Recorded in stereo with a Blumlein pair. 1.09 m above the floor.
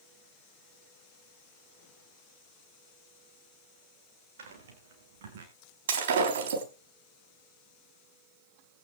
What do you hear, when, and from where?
4.4 s footsteps: 60° right, 5 m; by 5.5 s 55° right, 5 m
5.9 s breaking glass: 60° right, 4 m